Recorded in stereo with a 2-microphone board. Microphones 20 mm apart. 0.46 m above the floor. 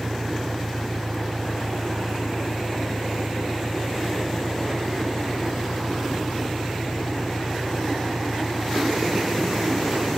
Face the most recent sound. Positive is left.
turn(degrees=5)  # may be behind; listen again after turning